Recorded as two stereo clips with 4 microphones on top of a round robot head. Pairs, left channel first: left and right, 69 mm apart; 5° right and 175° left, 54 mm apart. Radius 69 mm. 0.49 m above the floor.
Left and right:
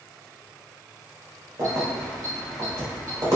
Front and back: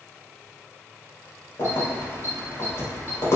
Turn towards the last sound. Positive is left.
turn(degrees=-45)